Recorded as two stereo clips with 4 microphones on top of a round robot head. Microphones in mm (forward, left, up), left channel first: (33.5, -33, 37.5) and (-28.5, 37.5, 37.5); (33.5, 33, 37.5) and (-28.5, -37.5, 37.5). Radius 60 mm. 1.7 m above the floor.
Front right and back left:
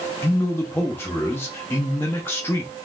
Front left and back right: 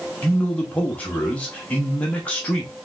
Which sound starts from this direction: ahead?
A man speaking, at 0.2 s.